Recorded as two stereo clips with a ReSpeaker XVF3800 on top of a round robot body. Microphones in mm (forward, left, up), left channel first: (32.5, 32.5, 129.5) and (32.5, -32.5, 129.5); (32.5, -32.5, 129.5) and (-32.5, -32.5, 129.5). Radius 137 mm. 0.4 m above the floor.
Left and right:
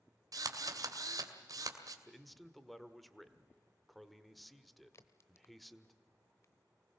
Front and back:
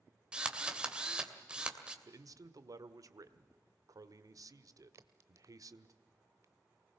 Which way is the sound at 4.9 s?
135° left.